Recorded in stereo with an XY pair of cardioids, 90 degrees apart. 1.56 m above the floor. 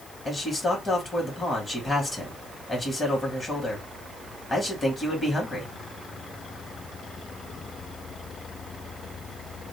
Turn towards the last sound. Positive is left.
turn(degrees=30)